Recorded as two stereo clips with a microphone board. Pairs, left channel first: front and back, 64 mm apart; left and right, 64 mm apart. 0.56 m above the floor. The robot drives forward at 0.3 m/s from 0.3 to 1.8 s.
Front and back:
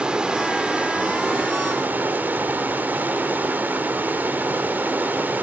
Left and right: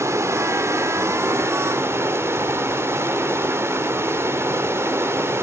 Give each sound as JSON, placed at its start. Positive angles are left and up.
{"t": 0.0, "sound": "running water", "azimuth_deg": -110, "distance_m": 1.5}